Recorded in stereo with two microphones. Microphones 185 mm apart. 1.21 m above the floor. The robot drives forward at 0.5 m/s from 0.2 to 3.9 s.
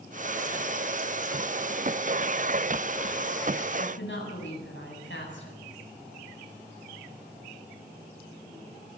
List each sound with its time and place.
3.8 s a woman speaking: 90° left, 8 m